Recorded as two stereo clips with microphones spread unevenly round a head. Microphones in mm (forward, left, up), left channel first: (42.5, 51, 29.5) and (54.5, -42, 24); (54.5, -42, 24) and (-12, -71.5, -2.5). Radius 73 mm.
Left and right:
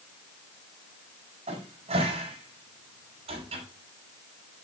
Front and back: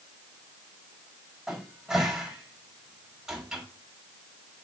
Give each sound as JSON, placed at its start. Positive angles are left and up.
{"t": 1.5, "sound": "a cupboard door", "azimuth_deg": -70, "distance_m": 4.5}